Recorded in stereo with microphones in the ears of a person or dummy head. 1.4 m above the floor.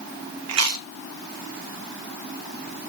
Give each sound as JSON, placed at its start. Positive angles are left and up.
{"t": 0.5, "sound": "chewing", "side_deg": -70, "distance_m": 0.9}